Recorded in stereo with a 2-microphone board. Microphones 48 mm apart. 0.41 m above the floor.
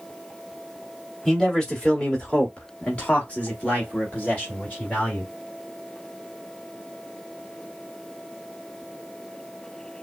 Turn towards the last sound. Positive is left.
turn(degrees=30)  # may be behind; listen again after turning